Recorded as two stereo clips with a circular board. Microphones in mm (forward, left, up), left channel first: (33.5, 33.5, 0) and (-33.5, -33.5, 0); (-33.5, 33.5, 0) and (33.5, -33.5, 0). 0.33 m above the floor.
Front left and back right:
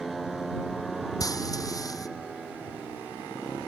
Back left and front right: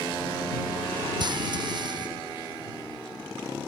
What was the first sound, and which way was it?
Frying, 5° right.